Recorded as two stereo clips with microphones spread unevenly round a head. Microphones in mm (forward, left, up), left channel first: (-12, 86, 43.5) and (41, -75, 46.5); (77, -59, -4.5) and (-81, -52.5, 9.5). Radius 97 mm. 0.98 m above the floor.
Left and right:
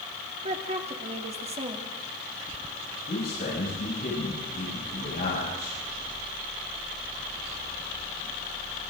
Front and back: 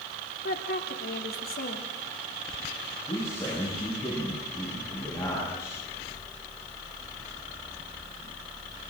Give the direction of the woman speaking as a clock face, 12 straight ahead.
1 o'clock.